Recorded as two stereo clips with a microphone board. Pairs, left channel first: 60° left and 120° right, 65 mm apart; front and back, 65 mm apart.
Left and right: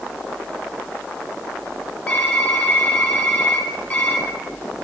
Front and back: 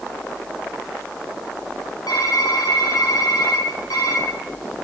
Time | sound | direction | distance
2.1 | typing on a keyboard | 10° right | 5.5 m